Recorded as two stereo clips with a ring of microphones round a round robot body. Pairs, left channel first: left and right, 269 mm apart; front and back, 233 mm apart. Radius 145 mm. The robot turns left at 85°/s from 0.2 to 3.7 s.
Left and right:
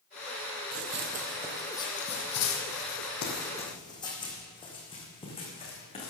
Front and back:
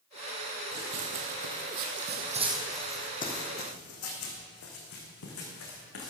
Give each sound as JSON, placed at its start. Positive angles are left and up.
{"t": 0.7, "sound": "running footsteps", "azimuth_deg": -120, "distance_m": 1.4}